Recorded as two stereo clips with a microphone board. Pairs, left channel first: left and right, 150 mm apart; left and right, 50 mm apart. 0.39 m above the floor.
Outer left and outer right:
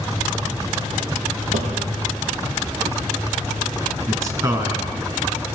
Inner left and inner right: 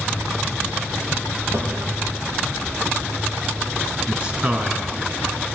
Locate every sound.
1.5 s a drawer: 55° right (ahead or behind), 6.5 m
4.1 s a man speaking: 25° right (ahead or behind), 3.5 m